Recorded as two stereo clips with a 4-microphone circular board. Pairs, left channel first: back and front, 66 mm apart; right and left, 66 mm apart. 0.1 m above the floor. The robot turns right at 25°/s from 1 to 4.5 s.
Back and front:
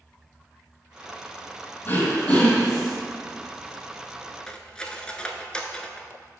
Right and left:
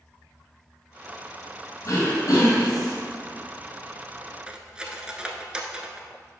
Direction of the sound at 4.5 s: 135° left.